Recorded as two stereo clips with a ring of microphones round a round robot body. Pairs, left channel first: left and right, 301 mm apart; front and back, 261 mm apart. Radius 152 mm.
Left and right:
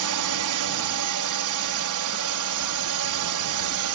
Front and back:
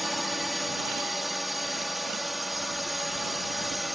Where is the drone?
90° right.